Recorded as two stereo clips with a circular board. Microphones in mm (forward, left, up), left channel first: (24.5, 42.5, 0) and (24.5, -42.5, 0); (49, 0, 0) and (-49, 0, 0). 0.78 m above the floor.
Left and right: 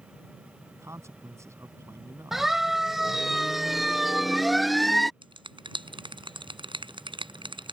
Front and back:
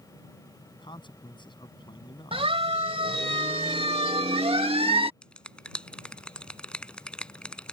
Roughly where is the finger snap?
Right.